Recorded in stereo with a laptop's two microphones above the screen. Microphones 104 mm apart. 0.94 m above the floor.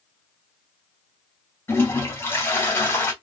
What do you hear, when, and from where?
1.7 s a toilet flushing: 25° left (ahead or behind), 2 m